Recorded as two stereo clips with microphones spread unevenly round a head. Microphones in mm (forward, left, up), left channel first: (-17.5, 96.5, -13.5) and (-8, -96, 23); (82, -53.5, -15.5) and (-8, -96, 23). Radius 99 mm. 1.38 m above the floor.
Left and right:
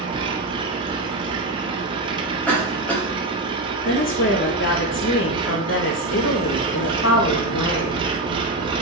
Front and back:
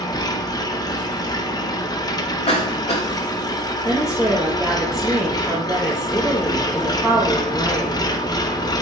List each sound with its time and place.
0.0 s an engine running: 35° right, 0.9 m
2.5 s a cough: 10° left, 3 m
3.9 s a woman speaking: 120° left, 1.5 m